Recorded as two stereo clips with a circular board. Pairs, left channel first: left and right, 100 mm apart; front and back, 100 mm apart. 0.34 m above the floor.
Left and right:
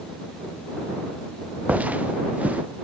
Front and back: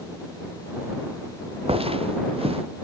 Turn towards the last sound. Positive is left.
turn(degrees=-165)